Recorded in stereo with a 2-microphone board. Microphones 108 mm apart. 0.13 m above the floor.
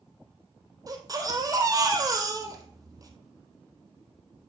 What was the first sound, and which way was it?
A baby crying, 35° right (ahead or behind).